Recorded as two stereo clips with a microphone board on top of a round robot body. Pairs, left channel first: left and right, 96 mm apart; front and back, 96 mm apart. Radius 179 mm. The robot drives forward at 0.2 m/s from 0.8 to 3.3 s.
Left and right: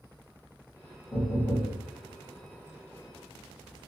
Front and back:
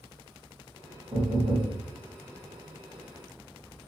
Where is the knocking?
160° left, 1.2 m.